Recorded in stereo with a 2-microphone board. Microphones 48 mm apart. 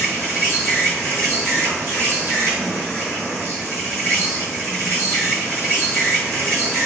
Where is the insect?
60° right (ahead or behind), 1.6 m.